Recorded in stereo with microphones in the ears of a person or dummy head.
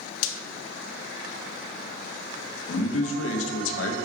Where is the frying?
75° left (ahead or behind), 0.6 m.